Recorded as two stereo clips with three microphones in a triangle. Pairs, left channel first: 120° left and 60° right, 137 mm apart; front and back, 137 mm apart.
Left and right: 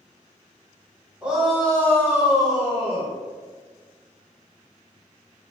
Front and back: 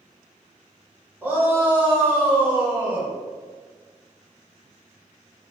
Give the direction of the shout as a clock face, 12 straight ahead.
4 o'clock.